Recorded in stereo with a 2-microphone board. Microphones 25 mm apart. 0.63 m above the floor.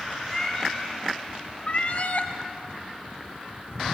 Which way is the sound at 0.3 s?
15° left (ahead or behind).